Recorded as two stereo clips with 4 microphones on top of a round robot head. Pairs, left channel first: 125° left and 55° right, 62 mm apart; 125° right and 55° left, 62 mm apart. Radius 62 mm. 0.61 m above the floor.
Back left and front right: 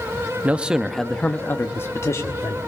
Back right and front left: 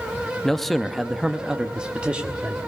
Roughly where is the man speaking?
Ahead right.